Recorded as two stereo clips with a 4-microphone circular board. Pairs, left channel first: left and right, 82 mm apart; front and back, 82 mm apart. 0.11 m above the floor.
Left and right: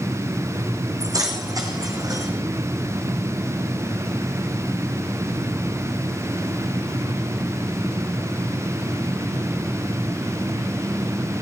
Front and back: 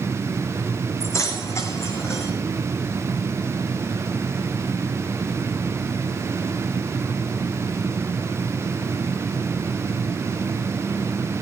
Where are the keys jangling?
50° right, 4.5 m; by 2.3 s 55° right, 5 m.